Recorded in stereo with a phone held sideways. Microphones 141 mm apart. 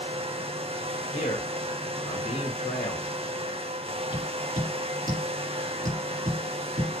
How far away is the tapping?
About 4.5 m.